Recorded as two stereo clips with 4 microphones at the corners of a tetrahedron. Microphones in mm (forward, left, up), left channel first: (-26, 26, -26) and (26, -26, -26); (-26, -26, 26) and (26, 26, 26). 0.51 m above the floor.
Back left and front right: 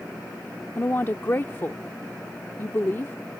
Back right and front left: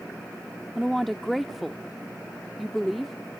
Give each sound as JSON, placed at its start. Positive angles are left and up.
{"t": 0.8, "sound": "a woman speaking", "azimuth_deg": 135}